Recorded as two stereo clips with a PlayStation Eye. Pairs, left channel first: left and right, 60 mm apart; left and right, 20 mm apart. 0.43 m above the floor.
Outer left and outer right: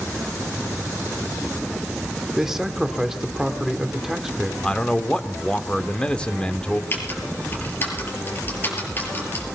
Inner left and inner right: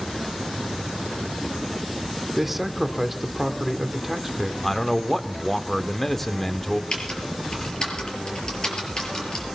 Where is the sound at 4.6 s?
15° left (ahead or behind), 0.8 m.